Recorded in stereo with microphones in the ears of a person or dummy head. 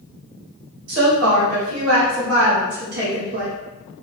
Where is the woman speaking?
65° right (ahead or behind), 1.6 m; by 3.5 s 35° right (ahead or behind), 0.5 m.